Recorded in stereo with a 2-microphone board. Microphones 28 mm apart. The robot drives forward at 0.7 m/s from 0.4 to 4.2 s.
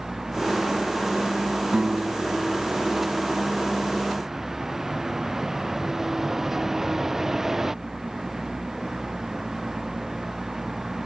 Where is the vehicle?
10° right (ahead or behind).